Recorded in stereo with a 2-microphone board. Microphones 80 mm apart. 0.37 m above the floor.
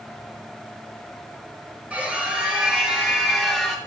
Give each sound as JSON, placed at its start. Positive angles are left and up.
{"t": 1.9, "sound": "a scream", "side_deg": -15, "distance_m": 5.0}